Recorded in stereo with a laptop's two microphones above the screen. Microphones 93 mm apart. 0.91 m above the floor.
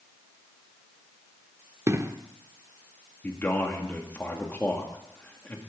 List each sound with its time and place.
1.9 s an explosion: 30° right (ahead or behind), 0.6 m
3.2 s a man speaking: 20° left (ahead or behind), 2 m